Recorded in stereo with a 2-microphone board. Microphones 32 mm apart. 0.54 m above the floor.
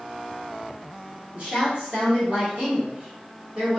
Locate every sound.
1.3 s a woman speaking: 40° right (ahead or behind), 1.6 m